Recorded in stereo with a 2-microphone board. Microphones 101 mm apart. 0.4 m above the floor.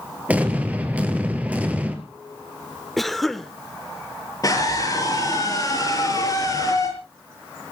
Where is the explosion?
15° right (ahead or behind), 2.5 m.